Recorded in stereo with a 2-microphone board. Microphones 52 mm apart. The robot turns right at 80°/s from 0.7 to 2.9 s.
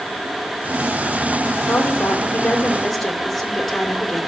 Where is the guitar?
No guitar in this recording.